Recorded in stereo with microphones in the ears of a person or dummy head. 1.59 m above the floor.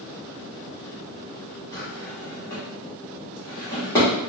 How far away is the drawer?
About 1.2 m.